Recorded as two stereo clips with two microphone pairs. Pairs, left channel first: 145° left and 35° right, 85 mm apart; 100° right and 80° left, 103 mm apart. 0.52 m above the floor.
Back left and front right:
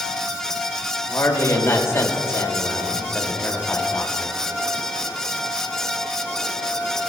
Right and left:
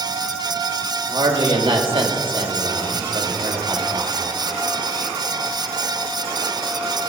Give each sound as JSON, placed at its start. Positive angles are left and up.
{"t": 1.1, "sound": "a man speaking", "azimuth_deg": 95, "distance_m": 1.9}